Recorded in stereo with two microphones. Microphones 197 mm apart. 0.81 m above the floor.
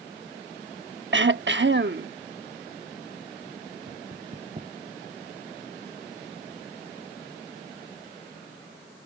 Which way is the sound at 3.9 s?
35° right (ahead or behind).